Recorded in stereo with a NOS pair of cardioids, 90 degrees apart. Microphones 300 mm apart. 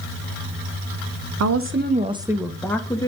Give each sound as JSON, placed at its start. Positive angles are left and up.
{"t": 1.4, "sound": "a woman speaking", "azimuth_deg": -60, "distance_m": 0.9}